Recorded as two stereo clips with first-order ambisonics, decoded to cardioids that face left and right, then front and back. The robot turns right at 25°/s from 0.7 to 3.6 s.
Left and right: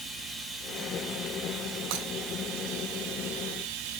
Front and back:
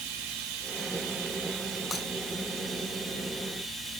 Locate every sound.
0.0 s running water: 175° right, 2.5 m; by 4.0 s 105° right, 2.5 m
1.9 s breaking glass: 80° right, 2.5 m; by 2.1 s 75° right, 2.5 m